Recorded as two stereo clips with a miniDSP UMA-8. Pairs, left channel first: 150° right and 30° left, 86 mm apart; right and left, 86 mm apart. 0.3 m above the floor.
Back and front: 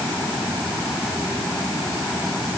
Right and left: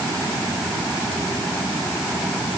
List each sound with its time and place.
Only background noise.